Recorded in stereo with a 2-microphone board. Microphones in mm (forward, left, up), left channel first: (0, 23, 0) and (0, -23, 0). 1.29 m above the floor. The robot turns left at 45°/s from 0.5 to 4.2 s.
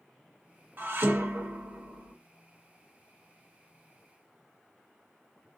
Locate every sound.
0.8 s dishes clattering: 55° right, 0.9 m; by 2.1 s 115° right, 0.9 m